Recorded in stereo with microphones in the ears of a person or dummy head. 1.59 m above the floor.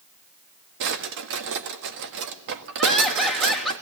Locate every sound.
0.8 s a drawer: 65° right (ahead or behind), 1.6 m
2.8 s laughter: centre (ahead or behind), 3.5 m